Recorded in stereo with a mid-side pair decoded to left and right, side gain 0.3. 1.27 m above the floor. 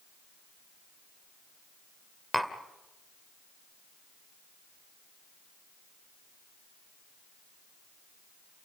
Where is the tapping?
5° right, 2 m.